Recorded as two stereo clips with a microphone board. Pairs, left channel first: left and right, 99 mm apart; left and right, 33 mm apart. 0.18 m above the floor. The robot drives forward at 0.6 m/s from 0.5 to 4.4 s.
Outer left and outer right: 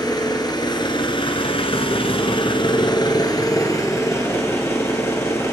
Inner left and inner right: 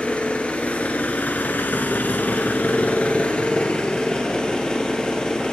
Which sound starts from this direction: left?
An engine running, at 0.0 s.